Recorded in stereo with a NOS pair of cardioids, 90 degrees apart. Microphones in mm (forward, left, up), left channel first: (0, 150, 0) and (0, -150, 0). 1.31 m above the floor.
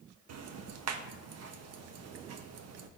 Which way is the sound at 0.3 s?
55° right.